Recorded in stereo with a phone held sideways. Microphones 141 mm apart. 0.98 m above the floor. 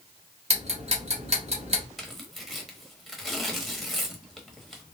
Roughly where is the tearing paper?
Centre.